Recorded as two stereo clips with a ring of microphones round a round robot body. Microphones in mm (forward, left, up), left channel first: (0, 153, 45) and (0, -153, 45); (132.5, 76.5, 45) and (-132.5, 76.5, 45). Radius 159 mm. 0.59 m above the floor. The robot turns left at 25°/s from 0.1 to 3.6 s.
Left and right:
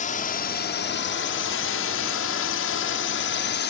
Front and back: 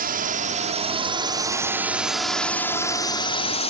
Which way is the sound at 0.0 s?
145° left.